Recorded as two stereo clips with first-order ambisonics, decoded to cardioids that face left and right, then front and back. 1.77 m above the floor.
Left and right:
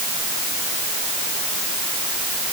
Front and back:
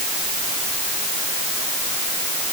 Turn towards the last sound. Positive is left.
No sound to turn to.